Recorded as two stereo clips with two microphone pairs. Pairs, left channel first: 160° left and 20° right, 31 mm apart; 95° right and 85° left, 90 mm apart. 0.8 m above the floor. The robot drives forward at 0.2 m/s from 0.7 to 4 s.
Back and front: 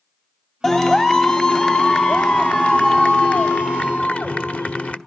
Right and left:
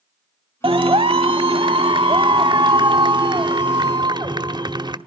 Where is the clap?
90° left, 1.2 m; by 5.0 s 120° left, 1.3 m.